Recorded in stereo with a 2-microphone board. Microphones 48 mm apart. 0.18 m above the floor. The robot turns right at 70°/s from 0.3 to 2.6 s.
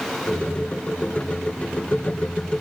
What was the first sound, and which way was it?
Only background noise.